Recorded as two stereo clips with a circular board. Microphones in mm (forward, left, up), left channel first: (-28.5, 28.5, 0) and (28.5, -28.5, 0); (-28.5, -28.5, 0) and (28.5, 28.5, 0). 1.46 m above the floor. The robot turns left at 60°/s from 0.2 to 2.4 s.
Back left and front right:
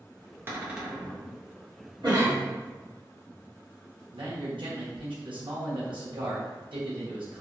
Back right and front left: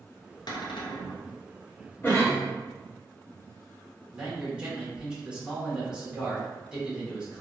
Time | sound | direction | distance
0.5 | a cupboard door | 105° right | 0.6 m
2.0 | a cough | 70° right | 1.4 m
4.1 | a man speaking | 35° right | 1.3 m